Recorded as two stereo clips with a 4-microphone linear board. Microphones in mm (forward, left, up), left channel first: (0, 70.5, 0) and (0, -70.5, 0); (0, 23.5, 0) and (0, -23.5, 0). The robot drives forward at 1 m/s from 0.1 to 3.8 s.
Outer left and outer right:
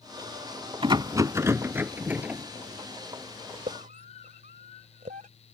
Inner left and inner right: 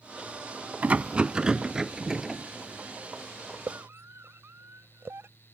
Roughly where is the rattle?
Right.